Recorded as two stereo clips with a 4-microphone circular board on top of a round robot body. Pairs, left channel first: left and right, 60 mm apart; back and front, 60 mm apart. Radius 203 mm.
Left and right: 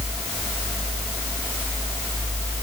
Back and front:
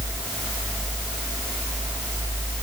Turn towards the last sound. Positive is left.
No sound to turn to.